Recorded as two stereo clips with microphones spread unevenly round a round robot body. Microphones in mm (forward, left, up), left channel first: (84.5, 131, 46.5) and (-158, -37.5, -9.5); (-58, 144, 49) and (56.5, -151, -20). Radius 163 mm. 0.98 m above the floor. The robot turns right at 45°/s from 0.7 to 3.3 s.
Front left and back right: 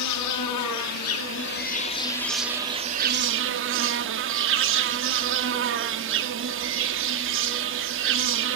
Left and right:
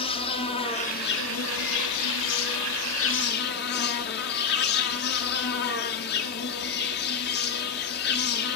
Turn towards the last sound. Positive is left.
turn(degrees=160)